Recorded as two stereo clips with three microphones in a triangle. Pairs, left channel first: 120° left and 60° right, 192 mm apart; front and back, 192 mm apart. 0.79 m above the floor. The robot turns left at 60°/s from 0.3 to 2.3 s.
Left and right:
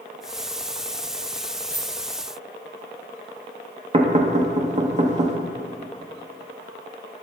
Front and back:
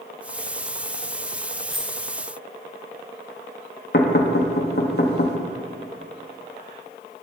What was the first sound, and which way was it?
A dropped coin, 85° right.